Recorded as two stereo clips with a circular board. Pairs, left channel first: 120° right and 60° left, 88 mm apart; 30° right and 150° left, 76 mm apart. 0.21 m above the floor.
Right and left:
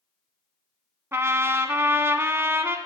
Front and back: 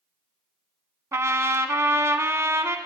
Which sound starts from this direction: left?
A trumpet, at 1.1 s.